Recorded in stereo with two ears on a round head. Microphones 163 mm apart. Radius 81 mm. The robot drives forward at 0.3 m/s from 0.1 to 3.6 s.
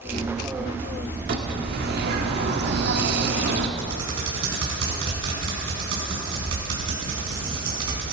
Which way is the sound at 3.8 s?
80° right.